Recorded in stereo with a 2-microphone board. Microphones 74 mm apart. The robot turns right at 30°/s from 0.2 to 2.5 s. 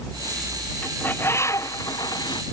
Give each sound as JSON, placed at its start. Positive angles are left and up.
{"t": 0.8, "sound": "a bird", "azimuth_deg": 20}